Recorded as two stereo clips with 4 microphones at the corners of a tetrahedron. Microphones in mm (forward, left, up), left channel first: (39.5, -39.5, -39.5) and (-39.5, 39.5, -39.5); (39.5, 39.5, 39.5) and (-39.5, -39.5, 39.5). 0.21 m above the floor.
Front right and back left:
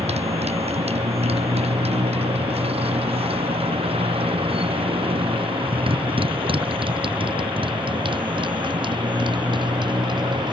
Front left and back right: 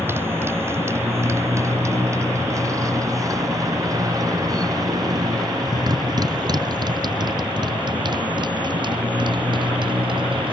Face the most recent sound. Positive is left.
turn(degrees=180)